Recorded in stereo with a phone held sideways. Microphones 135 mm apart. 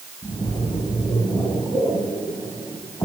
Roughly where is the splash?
Left.